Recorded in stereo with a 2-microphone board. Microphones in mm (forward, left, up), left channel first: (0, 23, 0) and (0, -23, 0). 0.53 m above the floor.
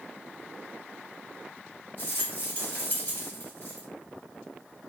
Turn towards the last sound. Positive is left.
turn(degrees=40)  # may be behind; listen again after turning